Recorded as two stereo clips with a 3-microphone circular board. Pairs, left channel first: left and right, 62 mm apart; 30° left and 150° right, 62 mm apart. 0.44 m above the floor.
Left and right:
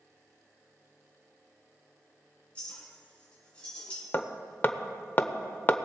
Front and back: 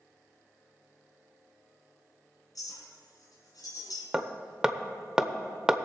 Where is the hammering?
135° left, 0.8 m.